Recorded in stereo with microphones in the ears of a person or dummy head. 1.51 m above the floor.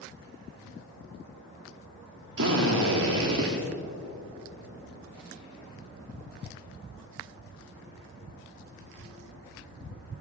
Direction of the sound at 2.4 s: 65° right (ahead or behind).